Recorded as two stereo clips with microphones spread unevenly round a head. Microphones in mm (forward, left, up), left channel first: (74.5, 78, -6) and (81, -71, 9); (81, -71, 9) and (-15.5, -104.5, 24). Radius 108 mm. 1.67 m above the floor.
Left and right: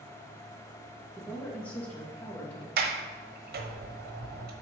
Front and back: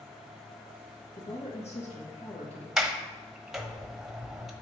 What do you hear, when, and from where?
1.1 s a woman speaking: 10° left, 2.5 m
2.8 s a sliding door: 75° right, 1.1 m